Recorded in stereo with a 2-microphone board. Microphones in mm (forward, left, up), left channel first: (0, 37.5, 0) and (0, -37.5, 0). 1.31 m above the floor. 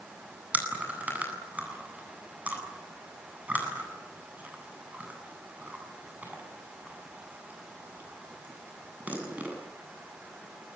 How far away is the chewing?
About 8.5 m.